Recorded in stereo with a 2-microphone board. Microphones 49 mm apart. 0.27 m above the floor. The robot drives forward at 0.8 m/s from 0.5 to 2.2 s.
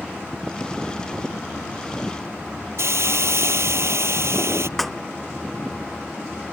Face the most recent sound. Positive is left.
turn(degrees=5)  # may be behind; listen again after turning